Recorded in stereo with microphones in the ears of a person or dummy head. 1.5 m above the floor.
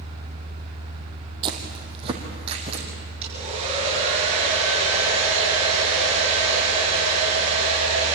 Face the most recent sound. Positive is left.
turn(degrees=-35)  # may be behind; listen again after turning